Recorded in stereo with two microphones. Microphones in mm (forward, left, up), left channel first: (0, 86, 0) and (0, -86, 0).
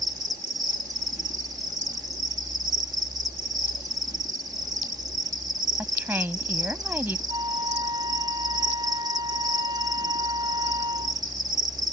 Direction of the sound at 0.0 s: 20° right (ahead or behind).